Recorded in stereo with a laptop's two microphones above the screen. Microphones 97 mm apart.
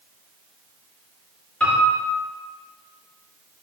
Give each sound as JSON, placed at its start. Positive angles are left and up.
{"t": 1.6, "sound": "a piano", "side_deg": 10, "distance_m": 3.0}